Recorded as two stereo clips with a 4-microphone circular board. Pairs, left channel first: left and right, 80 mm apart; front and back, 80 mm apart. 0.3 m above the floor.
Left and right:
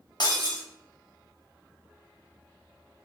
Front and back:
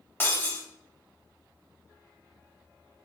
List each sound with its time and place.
0.2 s breaking glass: 60° left, 0.7 m